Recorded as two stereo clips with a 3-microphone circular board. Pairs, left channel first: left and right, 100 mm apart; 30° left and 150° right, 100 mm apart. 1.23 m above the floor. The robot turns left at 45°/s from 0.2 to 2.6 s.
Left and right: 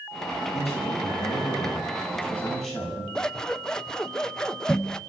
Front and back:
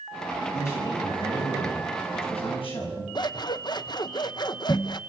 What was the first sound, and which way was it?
A man speaking, 95° left.